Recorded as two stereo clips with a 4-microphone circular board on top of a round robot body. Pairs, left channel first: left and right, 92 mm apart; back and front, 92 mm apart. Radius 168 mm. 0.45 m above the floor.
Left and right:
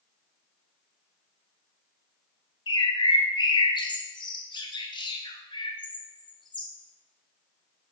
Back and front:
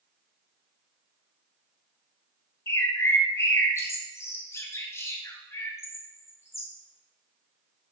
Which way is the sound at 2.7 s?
120° left.